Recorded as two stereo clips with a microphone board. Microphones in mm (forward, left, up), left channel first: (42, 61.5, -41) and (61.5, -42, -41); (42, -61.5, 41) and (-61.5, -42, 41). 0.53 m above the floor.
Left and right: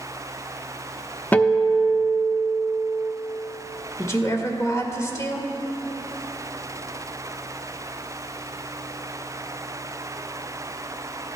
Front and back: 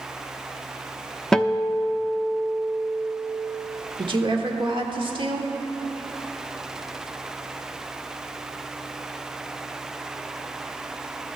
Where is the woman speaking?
150° left, 1.5 m.